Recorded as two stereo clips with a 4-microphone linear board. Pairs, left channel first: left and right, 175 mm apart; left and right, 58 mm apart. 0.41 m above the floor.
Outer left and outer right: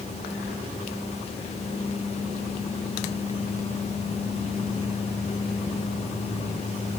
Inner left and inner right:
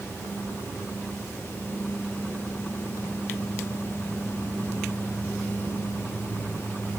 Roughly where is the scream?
I don't hear a scream.